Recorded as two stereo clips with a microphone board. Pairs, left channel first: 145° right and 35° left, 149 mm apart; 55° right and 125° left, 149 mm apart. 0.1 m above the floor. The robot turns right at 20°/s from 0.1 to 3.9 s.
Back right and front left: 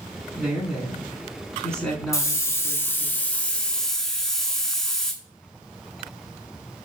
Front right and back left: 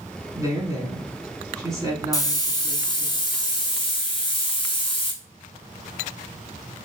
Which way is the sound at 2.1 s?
100° right.